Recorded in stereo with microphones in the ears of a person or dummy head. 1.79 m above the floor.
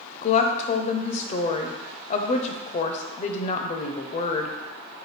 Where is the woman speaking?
45° left (ahead or behind), 0.6 m.